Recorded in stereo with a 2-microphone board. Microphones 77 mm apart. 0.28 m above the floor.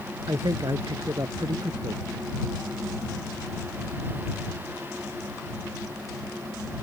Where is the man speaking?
60° right (ahead or behind).